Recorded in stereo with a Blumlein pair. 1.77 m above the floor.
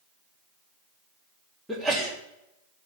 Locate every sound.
1.7 s a sneeze: straight ahead, 3.5 m